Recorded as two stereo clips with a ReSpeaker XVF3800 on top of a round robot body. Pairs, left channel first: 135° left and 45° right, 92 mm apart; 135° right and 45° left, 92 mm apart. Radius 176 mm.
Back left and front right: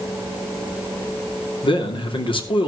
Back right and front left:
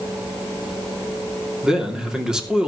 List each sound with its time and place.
1.6 s a man speaking: 125° left, 2.5 m